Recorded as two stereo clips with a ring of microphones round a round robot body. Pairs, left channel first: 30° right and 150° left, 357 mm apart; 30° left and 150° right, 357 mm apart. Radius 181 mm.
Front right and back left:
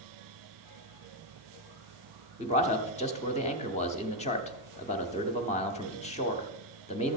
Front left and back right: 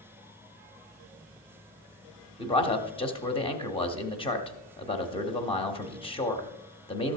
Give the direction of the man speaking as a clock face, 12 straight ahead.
12 o'clock.